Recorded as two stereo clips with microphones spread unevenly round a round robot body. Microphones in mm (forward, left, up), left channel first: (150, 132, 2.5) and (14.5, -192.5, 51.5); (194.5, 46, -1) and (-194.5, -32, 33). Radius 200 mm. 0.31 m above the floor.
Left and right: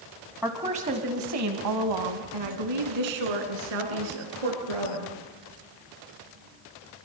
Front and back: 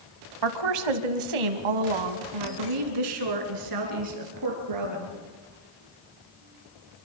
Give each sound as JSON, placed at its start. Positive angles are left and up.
{"t": 0.4, "sound": "a woman speaking", "azimuth_deg": 160, "distance_m": 1.9}